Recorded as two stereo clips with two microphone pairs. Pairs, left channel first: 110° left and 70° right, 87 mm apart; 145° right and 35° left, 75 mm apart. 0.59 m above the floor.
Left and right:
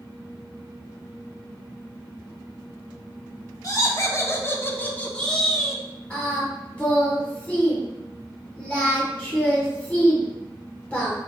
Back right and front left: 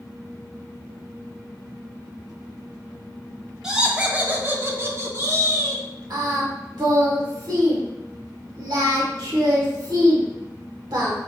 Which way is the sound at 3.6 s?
110° left.